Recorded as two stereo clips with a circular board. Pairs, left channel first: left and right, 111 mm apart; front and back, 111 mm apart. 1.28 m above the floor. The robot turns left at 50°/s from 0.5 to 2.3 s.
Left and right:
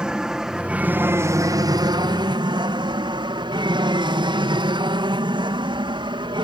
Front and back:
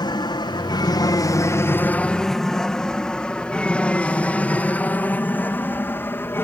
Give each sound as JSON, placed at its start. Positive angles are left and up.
{"t": 0.0, "sound": "an aircraft", "azimuth_deg": -10}